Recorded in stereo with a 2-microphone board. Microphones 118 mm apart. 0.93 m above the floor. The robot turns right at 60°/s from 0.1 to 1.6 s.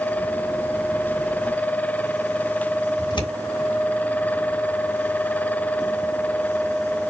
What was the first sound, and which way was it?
Scissors, 45° left (ahead or behind).